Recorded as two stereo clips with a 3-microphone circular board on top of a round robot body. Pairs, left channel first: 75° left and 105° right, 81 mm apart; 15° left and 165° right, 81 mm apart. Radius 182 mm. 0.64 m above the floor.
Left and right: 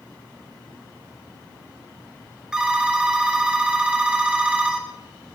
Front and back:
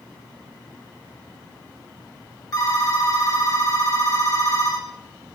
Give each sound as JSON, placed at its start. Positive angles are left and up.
{"t": 2.5, "sound": "a phone ringing", "azimuth_deg": -25, "distance_m": 1.9}